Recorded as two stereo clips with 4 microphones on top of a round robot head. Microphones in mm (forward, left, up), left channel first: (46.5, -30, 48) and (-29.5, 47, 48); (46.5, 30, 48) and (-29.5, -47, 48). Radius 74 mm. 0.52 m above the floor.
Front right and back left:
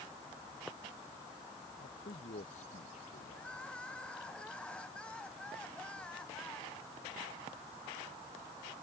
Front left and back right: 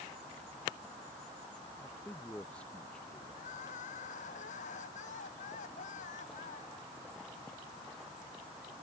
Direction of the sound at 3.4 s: 35° left.